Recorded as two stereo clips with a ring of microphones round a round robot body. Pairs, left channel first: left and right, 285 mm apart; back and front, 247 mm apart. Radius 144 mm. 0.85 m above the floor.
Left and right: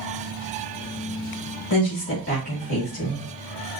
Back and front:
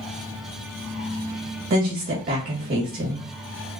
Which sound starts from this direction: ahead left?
A woman speaking, at 1.7 s.